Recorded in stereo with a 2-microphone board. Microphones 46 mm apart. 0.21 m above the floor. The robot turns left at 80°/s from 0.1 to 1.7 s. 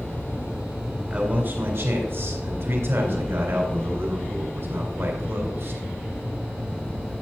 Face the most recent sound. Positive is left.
turn(degrees=-80)